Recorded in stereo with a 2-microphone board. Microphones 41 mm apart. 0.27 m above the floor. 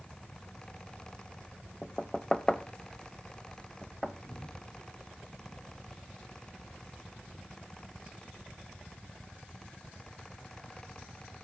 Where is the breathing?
85° left, 5.5 m.